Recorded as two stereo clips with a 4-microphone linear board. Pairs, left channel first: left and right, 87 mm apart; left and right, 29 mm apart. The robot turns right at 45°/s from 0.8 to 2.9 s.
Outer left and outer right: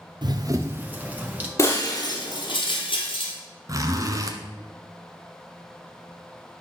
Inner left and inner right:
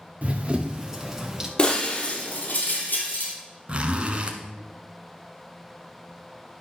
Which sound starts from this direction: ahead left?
Breaking glass, at 1.6 s.